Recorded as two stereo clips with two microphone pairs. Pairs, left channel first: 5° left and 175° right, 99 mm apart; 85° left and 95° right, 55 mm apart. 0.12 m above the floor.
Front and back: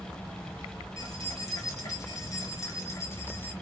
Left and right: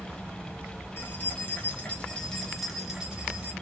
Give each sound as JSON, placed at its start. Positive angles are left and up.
{"t": 1.0, "sound": "keys jangling", "azimuth_deg": 50, "distance_m": 1.4}